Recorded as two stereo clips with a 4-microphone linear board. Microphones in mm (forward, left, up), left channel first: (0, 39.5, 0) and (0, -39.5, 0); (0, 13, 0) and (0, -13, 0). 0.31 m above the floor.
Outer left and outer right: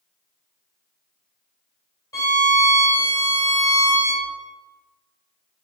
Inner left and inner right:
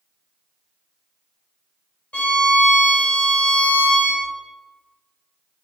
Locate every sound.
2.1 s a violin: 45° left (ahead or behind), 1.2 m